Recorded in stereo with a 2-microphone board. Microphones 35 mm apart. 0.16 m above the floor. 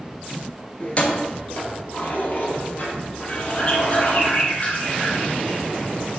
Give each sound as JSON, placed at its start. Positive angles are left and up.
{"t": 0.8, "sound": "keys jangling", "side_deg": 35, "distance_m": 1.5}
{"t": 3.3, "sound": "a bird", "side_deg": 40, "distance_m": 2.0}